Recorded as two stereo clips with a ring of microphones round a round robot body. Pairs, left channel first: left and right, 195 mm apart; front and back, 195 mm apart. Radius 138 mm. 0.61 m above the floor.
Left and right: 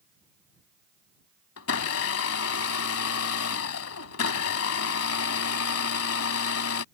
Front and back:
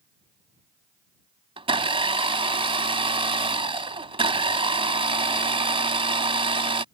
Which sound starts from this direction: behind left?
A blender, at 1.6 s.